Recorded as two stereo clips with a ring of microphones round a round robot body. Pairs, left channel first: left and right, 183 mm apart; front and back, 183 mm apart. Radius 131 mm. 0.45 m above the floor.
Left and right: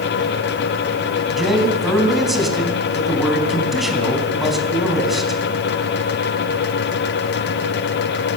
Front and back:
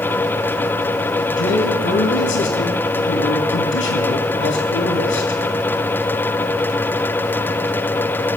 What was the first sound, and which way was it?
A man speaking, straight ahead.